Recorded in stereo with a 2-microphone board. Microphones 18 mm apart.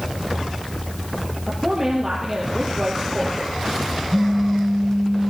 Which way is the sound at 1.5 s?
25° right (ahead or behind).